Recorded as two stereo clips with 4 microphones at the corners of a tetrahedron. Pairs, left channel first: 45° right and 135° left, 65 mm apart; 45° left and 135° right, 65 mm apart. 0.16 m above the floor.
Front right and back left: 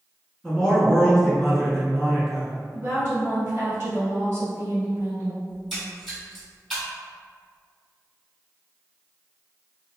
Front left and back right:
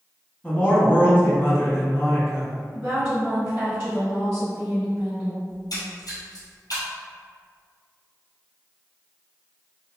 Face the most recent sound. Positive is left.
turn(degrees=45)